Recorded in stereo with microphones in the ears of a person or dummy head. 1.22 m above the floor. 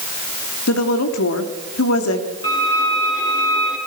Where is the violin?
20° left (ahead or behind), 6 m.